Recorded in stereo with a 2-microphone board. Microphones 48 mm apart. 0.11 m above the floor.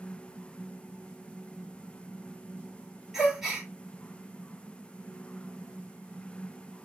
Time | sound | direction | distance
3.1 | a gasp | 5° right (ahead or behind) | 1.9 m